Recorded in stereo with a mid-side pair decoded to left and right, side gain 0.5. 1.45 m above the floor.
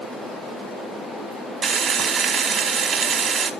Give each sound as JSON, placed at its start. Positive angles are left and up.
{"t": 1.6, "sound": "frying", "azimuth_deg": -55, "distance_m": 1.5}